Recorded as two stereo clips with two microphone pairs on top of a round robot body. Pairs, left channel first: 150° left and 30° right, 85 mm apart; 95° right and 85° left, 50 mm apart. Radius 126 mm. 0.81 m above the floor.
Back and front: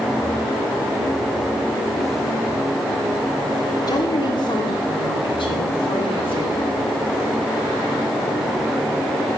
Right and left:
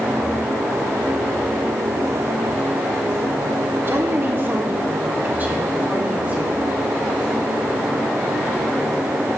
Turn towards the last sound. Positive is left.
turn(degrees=140)